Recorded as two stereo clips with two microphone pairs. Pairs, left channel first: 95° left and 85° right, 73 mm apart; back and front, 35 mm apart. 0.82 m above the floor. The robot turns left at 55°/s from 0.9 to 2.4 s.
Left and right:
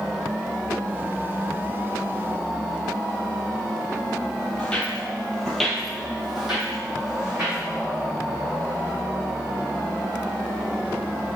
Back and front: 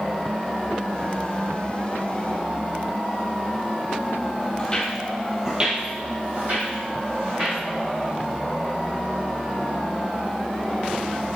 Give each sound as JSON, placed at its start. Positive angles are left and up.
{"t": 4.6, "sound": "footsteps", "azimuth_deg": 150, "distance_m": 0.9}